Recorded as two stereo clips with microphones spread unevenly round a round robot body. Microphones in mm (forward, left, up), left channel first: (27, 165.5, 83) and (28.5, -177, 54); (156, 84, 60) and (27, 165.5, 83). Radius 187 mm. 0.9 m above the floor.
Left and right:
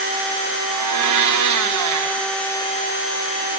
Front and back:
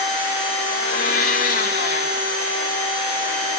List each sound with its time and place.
0.7 s a blender: 55° right, 0.9 m